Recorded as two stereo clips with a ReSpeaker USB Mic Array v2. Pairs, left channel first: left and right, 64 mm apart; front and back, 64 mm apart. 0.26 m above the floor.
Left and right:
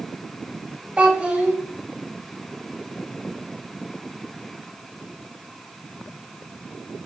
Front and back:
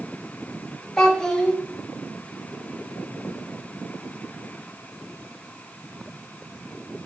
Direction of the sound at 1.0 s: 60° right.